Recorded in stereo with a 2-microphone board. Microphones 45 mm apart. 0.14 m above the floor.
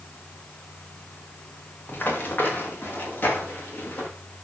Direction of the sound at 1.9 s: 45° left (ahead or behind).